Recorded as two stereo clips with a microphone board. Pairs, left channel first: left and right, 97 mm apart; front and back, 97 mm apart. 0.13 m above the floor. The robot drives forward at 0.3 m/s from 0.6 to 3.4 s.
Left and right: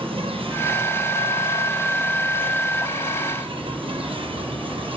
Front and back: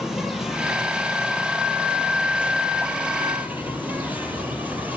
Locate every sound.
0.0 s an insect: 95° right, 4 m; by 5.0 s 110° right, 4 m